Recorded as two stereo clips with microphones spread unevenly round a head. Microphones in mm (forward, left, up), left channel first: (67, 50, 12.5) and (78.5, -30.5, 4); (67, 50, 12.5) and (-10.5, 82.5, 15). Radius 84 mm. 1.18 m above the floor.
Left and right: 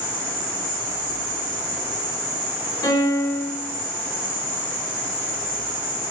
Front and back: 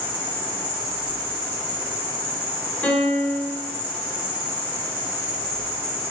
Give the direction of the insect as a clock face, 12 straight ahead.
4 o'clock.